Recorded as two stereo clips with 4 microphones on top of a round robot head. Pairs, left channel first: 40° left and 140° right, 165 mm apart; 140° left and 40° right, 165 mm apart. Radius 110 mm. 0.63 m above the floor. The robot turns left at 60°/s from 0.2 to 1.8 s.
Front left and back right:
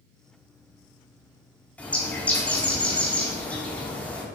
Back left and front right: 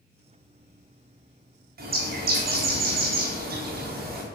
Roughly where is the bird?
Ahead right.